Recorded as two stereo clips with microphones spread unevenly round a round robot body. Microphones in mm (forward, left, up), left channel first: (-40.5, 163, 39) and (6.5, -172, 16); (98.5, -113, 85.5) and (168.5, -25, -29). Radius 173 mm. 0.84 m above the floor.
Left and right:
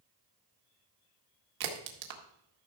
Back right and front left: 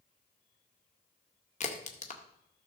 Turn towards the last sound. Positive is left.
turn(degrees=-95)